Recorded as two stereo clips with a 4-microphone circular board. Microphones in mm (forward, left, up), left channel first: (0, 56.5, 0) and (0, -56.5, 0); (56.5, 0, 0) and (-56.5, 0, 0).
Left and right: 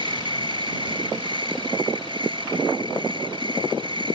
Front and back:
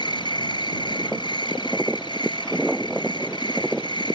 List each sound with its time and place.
0.0 s an insect: 45° right